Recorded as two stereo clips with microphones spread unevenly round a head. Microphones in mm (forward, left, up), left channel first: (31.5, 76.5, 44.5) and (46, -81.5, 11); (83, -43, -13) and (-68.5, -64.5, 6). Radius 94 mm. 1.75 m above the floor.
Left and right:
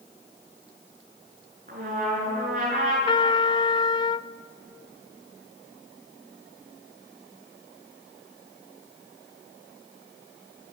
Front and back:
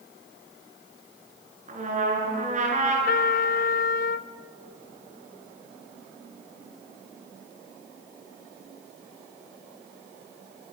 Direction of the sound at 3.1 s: 45° left.